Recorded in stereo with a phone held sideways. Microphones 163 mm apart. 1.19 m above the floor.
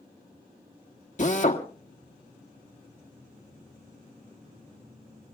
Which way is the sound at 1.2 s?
50° left (ahead or behind).